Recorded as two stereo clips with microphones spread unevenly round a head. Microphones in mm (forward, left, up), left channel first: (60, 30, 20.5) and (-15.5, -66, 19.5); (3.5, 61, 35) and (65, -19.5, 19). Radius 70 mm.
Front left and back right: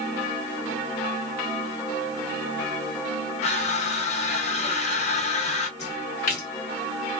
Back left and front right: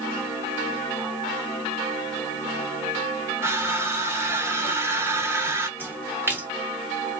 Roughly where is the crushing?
Ahead.